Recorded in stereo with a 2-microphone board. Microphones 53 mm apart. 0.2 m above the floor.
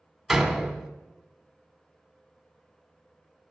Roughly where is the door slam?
Centre.